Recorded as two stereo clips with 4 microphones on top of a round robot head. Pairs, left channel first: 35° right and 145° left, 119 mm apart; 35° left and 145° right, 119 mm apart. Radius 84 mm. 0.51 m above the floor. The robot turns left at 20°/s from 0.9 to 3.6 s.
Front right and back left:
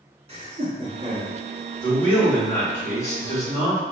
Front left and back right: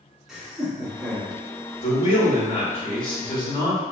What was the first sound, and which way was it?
Laughter, 130° left.